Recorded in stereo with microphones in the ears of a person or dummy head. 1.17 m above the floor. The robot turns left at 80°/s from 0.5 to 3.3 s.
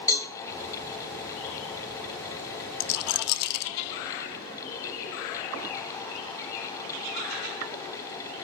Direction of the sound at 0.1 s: 20° left (ahead or behind).